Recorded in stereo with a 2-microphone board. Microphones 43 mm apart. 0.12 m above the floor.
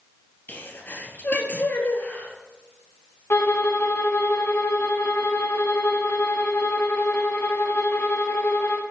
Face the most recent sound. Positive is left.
turn(degrees=55)  # may be behind; listen again after turning